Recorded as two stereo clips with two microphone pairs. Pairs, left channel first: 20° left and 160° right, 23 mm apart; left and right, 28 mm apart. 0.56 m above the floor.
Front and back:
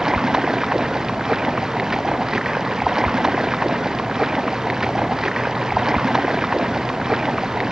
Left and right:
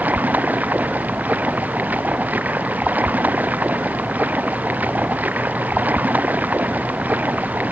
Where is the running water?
90° right.